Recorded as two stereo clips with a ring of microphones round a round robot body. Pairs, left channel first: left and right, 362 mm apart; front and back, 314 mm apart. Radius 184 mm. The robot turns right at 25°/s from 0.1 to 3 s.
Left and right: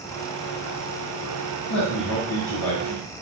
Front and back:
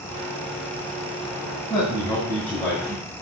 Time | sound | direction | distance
1.7 | a man speaking | 65° left | 2.5 m